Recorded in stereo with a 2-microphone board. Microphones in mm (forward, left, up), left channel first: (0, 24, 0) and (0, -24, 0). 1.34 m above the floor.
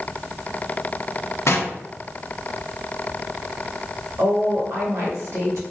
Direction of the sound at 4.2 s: 75° right (ahead or behind).